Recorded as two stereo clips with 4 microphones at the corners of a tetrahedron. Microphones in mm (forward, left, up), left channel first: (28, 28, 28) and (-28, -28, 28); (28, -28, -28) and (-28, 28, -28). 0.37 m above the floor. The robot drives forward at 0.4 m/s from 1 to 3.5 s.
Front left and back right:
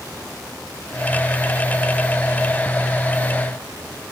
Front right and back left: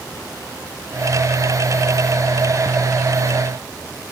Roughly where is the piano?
No piano in this recording.